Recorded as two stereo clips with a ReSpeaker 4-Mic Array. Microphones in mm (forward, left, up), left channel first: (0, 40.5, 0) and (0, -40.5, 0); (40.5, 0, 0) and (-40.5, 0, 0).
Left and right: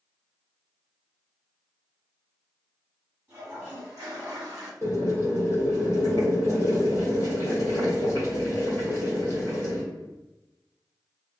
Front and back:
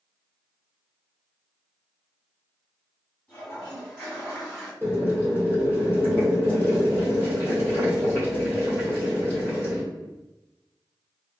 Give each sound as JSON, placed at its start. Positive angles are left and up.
{"t": 3.3, "sound": "a toilet flushing", "azimuth_deg": -55, "distance_m": 1.6}
{"t": 4.8, "sound": "boiling", "azimuth_deg": 50, "distance_m": 1.5}